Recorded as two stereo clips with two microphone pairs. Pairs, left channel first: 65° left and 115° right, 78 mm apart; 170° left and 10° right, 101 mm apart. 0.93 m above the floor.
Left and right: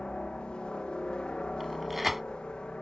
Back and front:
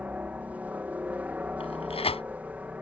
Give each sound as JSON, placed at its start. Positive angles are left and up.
{"t": 0.0, "sound": "a helicopter", "azimuth_deg": 20}
{"t": 1.6, "sound": "tearing paper", "azimuth_deg": 160}